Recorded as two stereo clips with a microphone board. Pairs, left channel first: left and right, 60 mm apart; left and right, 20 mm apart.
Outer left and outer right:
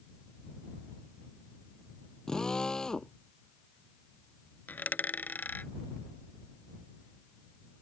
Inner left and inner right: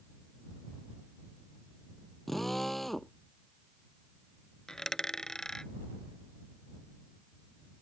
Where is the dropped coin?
30° left (ahead or behind).